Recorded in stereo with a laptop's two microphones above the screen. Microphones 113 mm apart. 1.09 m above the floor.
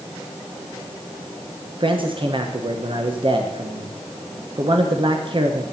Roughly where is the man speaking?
Right.